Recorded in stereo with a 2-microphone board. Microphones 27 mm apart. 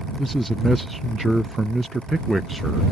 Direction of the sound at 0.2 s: 10° left (ahead or behind).